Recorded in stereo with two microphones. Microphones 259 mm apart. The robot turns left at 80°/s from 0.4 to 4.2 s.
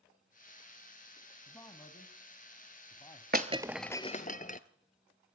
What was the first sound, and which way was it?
A man speaking, 10° left (ahead or behind).